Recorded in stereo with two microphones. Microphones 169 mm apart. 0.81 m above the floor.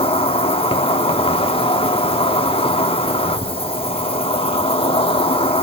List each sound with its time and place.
0.0 s an insect: 30° left (ahead or behind), 0.8 m